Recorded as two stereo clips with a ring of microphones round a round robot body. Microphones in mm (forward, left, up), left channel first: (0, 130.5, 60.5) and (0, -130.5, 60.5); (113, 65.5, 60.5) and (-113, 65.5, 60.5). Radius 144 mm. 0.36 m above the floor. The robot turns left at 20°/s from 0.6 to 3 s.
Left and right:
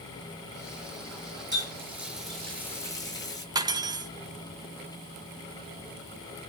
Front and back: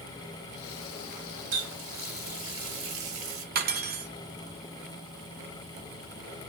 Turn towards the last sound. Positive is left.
turn(degrees=-160)